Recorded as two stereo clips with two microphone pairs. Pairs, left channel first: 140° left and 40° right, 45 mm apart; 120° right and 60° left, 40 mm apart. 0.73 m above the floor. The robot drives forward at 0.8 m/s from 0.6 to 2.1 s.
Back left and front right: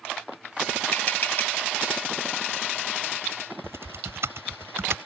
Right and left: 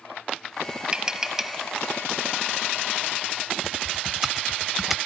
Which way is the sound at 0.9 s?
120° left.